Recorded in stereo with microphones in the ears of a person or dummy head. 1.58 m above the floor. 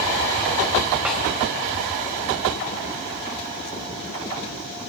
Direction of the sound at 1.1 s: 5° right (ahead or behind).